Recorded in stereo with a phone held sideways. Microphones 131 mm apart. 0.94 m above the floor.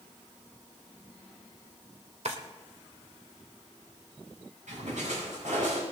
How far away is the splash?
About 6.5 m.